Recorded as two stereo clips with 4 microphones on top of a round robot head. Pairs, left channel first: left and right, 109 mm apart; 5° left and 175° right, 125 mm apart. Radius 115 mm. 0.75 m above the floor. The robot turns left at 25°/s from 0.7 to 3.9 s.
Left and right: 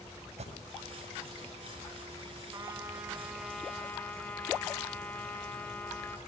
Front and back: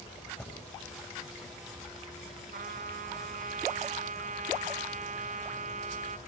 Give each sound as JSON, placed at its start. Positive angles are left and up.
{"t": 0.4, "sound": "an alarm", "azimuth_deg": -75, "distance_m": 8.5}
{"t": 2.5, "sound": "a trumpet", "azimuth_deg": -155, "distance_m": 3.0}